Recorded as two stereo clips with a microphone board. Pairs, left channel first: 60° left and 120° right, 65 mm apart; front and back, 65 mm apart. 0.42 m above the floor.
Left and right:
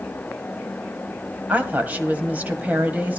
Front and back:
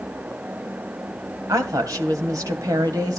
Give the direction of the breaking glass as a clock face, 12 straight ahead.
No breaking glass in this recording.